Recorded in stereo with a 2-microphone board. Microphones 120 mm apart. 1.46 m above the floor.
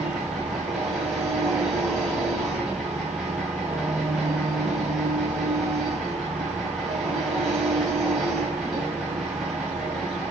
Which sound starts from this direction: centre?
An engine running, at 0.0 s.